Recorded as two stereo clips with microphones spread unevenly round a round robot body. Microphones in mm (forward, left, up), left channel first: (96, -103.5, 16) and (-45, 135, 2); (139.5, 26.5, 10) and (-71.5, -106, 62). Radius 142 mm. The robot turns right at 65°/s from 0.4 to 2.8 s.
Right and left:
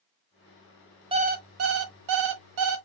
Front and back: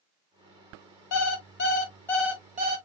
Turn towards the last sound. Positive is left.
turn(degrees=160)